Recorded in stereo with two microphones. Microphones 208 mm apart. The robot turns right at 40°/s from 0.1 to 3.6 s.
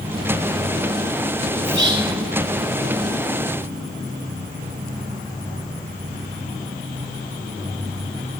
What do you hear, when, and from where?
1.6 s whispering: 65° right (ahead or behind), 2.5 m; by 2.1 s 50° right (ahead or behind), 2.5 m